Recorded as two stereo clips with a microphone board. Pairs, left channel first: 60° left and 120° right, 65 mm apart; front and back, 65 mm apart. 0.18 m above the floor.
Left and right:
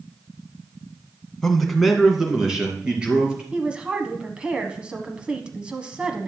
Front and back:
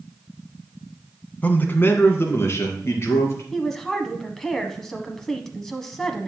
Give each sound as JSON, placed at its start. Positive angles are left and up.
{"t": 1.4, "sound": "a man speaking", "azimuth_deg": -15, "distance_m": 1.2}
{"t": 3.5, "sound": "a woman speaking", "azimuth_deg": -75, "distance_m": 1.1}